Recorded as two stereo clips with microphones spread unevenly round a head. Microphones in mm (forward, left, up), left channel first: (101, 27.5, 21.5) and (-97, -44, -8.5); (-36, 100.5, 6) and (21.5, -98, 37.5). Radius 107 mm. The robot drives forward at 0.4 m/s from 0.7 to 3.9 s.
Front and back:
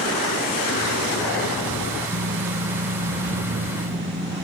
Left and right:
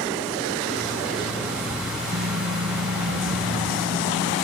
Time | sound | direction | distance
2.1 | typing on a keyboard | 115° right | ?